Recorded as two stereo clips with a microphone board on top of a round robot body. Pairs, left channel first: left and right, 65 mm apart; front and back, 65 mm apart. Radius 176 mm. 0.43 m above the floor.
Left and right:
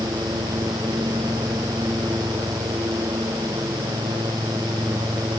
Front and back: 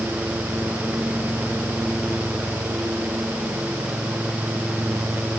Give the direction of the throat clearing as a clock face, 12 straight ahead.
I don't hear throat clearing.